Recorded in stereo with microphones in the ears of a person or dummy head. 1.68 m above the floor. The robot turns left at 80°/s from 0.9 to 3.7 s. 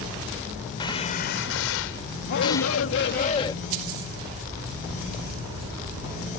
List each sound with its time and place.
0.8 s a gunshot: 155° left; by 2.8 s straight ahead
2.3 s a shout: 125° left; by 3.5 s 20° left